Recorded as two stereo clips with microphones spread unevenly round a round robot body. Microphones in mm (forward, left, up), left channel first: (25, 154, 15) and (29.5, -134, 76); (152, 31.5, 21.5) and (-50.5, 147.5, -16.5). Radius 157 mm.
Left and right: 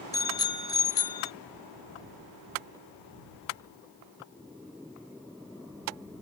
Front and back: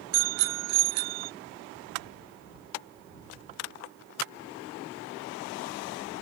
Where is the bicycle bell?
165° left.